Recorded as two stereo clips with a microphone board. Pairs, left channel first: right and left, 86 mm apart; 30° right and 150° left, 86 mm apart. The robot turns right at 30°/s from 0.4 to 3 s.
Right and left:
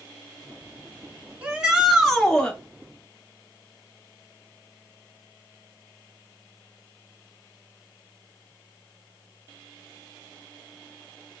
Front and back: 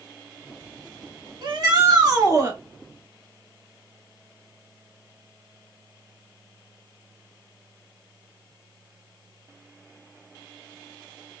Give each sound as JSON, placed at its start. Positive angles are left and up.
{"t": 1.4, "sound": "a shout", "azimuth_deg": 160, "distance_m": 1.9}